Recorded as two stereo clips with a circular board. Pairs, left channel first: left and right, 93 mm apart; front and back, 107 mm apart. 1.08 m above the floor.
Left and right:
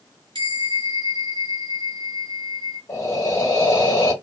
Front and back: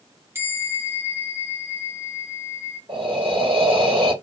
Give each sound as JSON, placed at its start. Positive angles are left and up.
{"t": 0.3, "sound": "a bell", "azimuth_deg": -115, "distance_m": 1.0}
{"t": 2.9, "sound": "breathing", "azimuth_deg": 145, "distance_m": 1.2}